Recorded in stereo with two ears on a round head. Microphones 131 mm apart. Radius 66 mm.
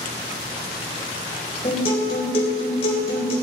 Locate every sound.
1.6 s a guitar: 40° left (ahead or behind), 4 m